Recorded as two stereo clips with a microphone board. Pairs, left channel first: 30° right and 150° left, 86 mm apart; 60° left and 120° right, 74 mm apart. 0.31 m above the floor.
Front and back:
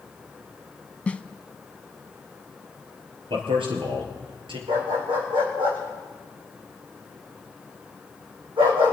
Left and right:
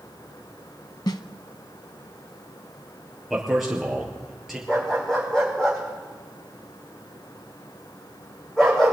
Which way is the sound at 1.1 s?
45° left.